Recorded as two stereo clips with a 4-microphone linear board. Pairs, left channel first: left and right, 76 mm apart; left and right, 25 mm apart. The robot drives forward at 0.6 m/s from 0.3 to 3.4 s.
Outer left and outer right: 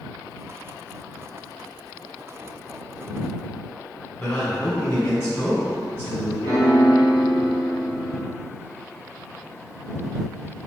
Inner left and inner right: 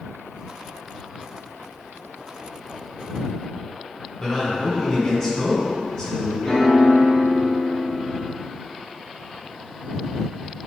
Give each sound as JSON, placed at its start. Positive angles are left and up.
{"t": 4.2, "sound": "a man speaking", "side_deg": 35, "distance_m": 1.9}
{"t": 6.4, "sound": "a piano", "side_deg": 35, "distance_m": 1.2}